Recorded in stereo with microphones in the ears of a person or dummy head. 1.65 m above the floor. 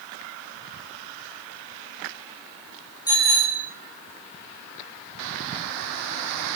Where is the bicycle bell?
20° left (ahead or behind), 5.5 m.